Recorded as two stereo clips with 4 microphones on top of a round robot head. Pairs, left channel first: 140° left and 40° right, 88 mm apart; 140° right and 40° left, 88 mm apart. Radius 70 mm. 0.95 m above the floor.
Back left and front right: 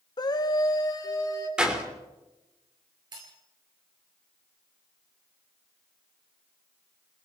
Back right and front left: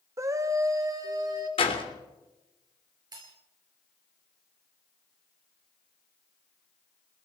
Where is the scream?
100° left, 1.2 m; by 1.5 s 90° left, 2.5 m.